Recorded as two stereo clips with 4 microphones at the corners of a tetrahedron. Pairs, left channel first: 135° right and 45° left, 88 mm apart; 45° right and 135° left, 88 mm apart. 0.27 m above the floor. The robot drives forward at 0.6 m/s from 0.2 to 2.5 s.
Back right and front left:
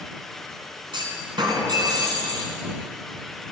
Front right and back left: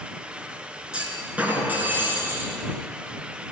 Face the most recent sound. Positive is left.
turn(degrees=75)